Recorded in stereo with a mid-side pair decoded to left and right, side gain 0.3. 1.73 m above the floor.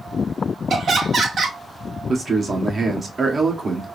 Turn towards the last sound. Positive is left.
turn(degrees=-55)